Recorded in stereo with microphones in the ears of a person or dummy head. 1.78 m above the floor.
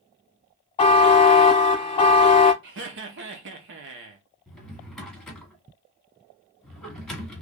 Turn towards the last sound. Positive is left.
turn(degrees=0)  # may be behind; listen again after turning